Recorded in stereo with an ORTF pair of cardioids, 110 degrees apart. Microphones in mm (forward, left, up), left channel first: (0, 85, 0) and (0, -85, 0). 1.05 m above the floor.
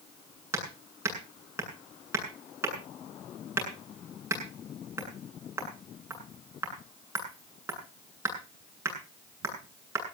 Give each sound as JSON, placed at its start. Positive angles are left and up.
{"t": 0.5, "sound": "hammering", "azimuth_deg": -15, "distance_m": 8.0}